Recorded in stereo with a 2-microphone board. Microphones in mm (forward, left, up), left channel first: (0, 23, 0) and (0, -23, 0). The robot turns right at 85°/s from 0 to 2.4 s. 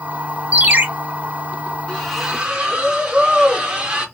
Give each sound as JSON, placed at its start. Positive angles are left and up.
{"t": 0.5, "sound": "a ringtone", "side_deg": -30, "distance_m": 0.5}
{"t": 1.9, "sound": "a splash", "azimuth_deg": 160, "distance_m": 0.8}